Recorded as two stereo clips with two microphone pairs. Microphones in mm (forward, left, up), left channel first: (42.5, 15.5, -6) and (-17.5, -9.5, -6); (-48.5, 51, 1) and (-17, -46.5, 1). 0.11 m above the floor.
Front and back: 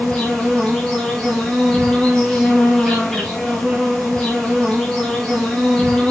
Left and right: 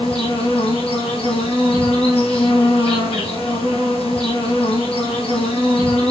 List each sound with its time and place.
0.0 s an insect: 100° left, 6.5 m